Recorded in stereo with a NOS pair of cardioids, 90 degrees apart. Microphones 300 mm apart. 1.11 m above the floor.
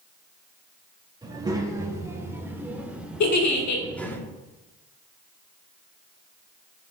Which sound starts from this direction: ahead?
A child speaking, at 1.2 s.